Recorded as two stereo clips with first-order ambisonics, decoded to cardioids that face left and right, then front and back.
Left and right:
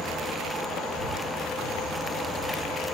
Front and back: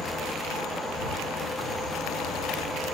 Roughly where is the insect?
Right.